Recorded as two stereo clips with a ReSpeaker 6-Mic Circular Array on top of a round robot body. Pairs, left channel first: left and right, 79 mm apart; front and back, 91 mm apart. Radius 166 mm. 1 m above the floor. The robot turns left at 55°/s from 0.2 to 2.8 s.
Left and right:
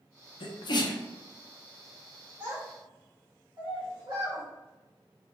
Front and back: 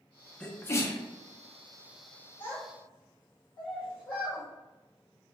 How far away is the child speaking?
About 0.9 m.